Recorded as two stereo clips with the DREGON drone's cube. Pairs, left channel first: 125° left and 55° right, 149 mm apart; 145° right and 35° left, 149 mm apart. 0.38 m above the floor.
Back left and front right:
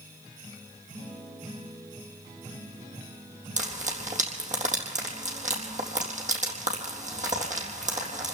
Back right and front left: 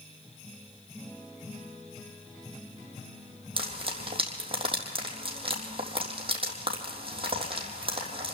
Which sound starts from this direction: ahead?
Frying, at 3.6 s.